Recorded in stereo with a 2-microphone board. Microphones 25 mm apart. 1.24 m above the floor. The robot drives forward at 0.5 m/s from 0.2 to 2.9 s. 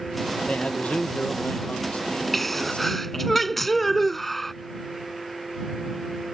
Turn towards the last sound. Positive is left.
turn(degrees=10)  # may be behind; listen again after turning